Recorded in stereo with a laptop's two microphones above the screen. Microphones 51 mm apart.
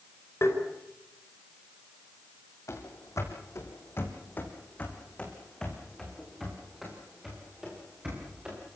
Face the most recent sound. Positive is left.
turn(degrees=-15)  # may be behind; listen again after turning